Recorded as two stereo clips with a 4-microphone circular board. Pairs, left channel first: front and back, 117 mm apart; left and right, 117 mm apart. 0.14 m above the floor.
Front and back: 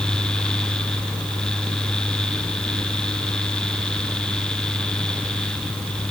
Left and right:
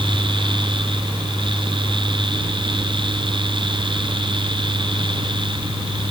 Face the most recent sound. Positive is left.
No sound to turn to.